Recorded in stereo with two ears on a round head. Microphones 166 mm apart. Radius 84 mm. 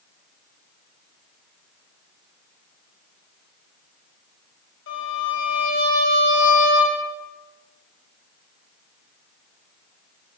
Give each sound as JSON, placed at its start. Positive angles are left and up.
{"t": 4.9, "sound": "a violin", "side_deg": 80, "distance_m": 6.0}